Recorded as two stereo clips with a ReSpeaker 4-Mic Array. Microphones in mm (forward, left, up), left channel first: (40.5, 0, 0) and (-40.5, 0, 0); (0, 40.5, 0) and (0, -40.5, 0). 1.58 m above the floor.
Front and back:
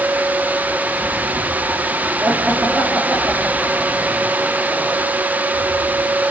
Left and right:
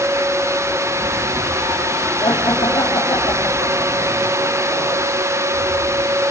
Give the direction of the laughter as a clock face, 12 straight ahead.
8 o'clock.